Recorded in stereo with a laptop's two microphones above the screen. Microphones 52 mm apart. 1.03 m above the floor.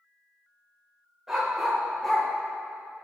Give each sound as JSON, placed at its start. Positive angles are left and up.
{"t": 1.3, "sound": "a dog barking", "side_deg": -5, "distance_m": 1.7}